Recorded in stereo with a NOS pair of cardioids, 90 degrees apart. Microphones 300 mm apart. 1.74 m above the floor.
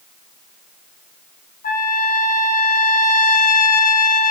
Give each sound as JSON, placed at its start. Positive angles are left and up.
{"t": 1.6, "sound": "a trumpet", "azimuth_deg": 30, "distance_m": 0.8}